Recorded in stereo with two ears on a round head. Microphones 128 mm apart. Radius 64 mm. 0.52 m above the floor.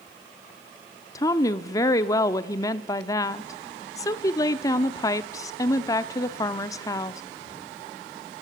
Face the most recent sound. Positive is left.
turn(degrees=25)  # may be behind; listen again after turning